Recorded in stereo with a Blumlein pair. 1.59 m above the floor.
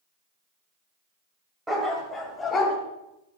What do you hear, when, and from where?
1.7 s a dog barking: 5° right, 3.5 m; by 2.8 s 20° left, 4 m